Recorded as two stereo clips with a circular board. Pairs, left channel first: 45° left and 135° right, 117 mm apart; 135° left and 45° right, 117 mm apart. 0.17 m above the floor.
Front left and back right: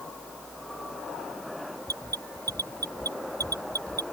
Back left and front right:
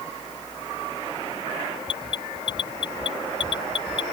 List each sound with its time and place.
1.9 s an alarm: 170° left